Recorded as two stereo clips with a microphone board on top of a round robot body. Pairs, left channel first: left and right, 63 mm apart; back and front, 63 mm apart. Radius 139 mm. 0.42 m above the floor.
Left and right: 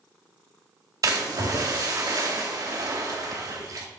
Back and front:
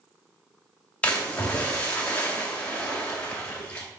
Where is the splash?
110° right, 2.5 m.